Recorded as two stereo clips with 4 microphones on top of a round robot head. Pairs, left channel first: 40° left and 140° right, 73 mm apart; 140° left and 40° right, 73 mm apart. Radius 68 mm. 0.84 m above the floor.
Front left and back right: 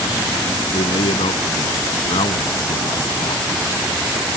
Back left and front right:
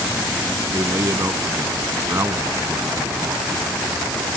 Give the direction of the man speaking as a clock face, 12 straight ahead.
11 o'clock.